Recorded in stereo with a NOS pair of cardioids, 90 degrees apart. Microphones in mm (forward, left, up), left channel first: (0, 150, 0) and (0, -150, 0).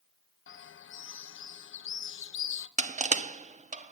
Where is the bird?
45° left, 0.8 m.